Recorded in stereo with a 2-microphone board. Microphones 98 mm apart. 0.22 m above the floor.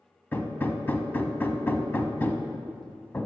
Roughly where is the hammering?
Centre.